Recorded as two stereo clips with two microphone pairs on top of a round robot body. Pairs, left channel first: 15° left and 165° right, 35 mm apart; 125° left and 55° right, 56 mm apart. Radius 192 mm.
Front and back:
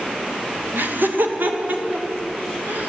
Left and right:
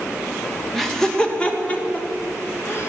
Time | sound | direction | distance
0.7 | laughter | 155° right | 1.7 m